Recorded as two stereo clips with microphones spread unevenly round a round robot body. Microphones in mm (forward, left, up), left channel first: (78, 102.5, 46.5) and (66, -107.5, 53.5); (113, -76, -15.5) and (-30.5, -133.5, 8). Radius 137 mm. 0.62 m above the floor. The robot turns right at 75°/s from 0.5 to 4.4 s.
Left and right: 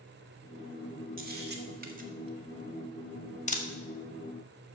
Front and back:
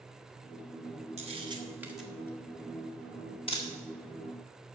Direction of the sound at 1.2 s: 125° right.